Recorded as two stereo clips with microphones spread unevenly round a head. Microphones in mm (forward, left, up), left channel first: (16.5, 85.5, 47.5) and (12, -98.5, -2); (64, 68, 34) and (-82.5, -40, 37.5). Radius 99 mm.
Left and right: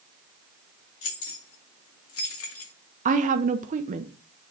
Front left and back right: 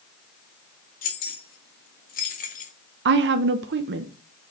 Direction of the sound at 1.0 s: 80° left.